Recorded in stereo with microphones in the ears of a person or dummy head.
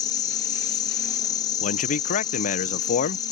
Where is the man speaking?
55° left (ahead or behind).